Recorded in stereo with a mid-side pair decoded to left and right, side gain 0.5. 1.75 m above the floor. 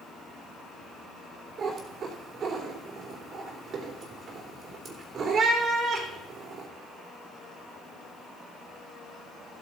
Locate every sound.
1.6 s a cat meowing: 55° right, 3 m